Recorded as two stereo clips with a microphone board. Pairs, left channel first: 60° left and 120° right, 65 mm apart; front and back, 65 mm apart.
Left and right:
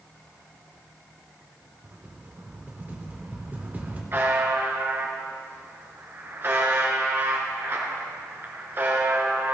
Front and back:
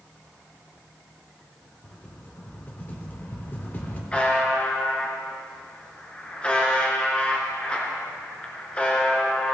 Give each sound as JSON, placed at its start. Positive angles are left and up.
{"t": 1.8, "sound": "a rattle", "azimuth_deg": -60, "distance_m": 1.8}
{"t": 4.1, "sound": "a buzzer", "azimuth_deg": -70, "distance_m": 2.0}